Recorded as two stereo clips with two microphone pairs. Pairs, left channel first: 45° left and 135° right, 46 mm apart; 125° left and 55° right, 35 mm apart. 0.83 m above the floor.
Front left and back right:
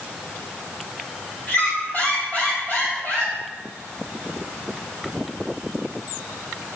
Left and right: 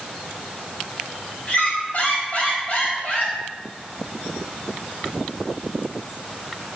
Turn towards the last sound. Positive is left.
turn(degrees=90)